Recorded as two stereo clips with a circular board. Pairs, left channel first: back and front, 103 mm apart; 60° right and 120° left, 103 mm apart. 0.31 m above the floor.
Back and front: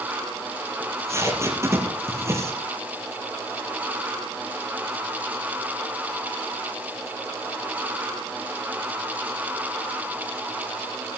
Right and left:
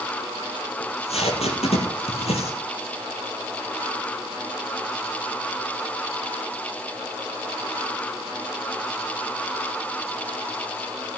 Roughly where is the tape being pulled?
Ahead right.